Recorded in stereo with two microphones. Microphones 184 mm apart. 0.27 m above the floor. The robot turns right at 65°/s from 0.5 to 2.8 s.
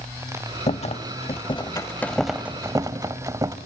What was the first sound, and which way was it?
A rattle, 75° left.